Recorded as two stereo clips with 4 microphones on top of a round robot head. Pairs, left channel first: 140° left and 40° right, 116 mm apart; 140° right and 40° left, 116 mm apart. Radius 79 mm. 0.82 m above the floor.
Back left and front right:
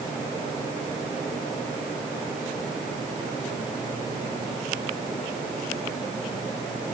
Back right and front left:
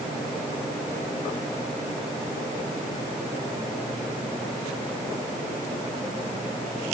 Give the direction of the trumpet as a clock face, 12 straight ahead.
No trumpet in this recording.